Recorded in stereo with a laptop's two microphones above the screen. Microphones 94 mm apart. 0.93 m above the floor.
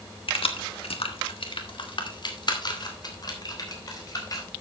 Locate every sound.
0.3 s keys jangling: 65° left (ahead or behind), 1.2 m; by 4.5 s 40° left (ahead or behind), 4.5 m